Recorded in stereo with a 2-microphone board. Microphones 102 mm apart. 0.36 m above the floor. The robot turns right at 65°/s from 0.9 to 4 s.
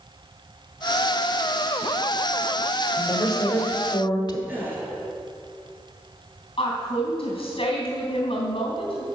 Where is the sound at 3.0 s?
40° left, 1.2 m; by 4.4 s 105° left, 1.2 m.